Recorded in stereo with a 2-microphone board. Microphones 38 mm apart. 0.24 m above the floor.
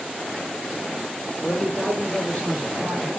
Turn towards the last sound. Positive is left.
turn(degrees=40)  # may be behind; listen again after turning